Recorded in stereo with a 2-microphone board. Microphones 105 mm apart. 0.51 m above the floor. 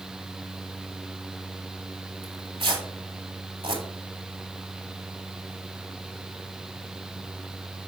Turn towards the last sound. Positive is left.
turn(degrees=-60)  # may be behind; listen again after turning